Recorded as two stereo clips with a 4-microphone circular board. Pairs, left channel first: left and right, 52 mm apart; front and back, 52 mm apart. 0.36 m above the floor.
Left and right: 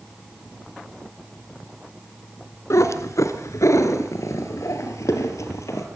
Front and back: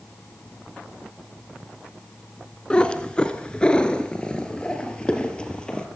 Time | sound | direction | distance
2.7 | a cat meowing | 70° left | 1.6 m